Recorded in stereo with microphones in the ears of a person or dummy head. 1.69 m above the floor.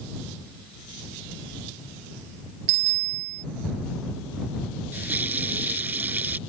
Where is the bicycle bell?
60° right (ahead or behind).